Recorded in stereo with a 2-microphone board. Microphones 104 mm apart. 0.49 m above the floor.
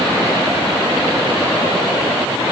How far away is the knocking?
No knocking in this recording.